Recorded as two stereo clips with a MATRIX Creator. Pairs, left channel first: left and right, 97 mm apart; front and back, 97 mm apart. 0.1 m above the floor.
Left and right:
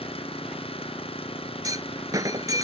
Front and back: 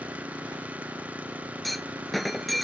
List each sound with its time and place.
0.0 s an engine running: 105° left
1.6 s a clunk: 90° right